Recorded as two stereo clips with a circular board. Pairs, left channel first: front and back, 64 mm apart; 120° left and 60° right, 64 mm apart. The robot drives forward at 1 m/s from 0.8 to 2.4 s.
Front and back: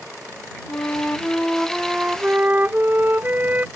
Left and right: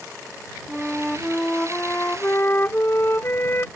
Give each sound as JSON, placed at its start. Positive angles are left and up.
{"t": 0.7, "sound": "a flute", "azimuth_deg": 35}